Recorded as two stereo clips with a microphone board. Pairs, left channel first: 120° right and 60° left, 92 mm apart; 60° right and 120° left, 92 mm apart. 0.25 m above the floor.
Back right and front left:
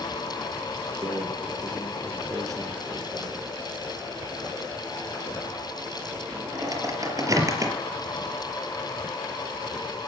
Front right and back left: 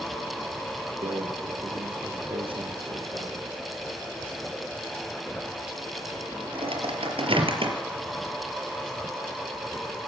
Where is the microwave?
110° left, 4.5 m.